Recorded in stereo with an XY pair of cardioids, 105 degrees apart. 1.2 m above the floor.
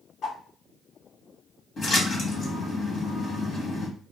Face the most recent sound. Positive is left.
turn(degrees=50)